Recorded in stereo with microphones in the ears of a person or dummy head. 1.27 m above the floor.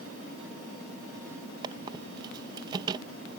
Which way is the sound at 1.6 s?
25° right (ahead or behind).